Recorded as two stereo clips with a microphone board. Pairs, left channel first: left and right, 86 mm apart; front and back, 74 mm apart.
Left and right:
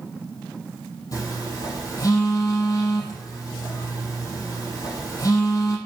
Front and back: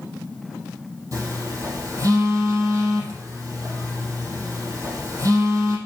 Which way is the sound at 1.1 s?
140° left.